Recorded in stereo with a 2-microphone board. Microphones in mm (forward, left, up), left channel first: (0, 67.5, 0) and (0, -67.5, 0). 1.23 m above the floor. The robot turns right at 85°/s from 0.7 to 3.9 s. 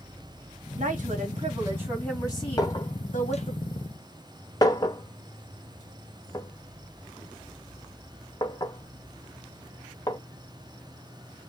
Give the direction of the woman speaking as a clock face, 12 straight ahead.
3 o'clock.